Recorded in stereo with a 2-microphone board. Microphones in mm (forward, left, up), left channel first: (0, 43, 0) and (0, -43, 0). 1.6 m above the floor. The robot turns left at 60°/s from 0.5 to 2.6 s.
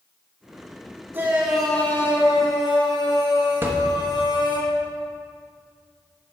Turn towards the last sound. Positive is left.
turn(degrees=-25)  # may be behind; listen again after turning